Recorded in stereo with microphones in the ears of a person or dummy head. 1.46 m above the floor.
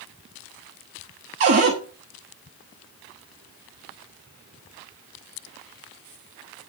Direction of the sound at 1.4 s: 35° right (ahead or behind).